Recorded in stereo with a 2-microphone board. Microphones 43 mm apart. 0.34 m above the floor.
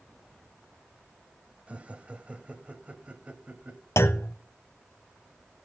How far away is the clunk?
About 0.6 m.